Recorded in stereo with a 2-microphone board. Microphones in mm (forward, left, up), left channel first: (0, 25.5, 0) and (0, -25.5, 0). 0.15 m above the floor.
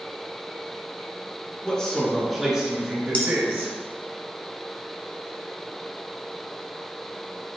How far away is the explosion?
I don't hear an explosion.